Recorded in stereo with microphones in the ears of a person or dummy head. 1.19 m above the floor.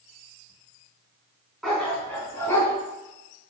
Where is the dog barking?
5° left (ahead or behind), 3.5 m; by 2.7 s 20° left (ahead or behind), 4 m.